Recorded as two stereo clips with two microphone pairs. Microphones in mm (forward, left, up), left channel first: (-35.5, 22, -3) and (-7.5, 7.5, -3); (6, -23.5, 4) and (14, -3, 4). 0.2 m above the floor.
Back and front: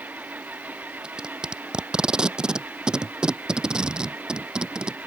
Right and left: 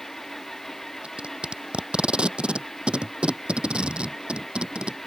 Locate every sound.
0.0 s an engine running: 30° right
1.0 s tape being pulled: 35° left